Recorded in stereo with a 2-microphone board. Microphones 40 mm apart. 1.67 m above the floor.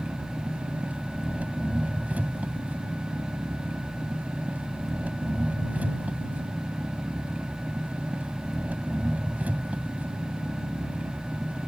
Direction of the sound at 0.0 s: 40° right (ahead or behind).